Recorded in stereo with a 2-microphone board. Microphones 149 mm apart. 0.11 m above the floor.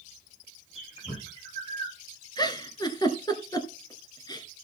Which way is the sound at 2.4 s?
25° left (ahead or behind).